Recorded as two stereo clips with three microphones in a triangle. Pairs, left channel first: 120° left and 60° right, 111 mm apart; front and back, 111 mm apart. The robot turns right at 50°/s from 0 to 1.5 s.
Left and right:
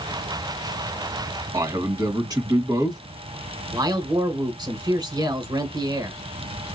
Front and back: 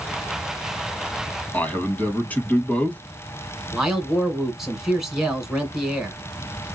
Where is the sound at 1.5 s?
65° right, 1.4 m.